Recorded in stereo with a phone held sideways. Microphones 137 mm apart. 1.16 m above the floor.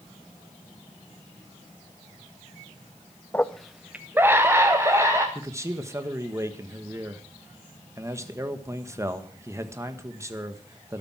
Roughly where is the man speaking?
Right.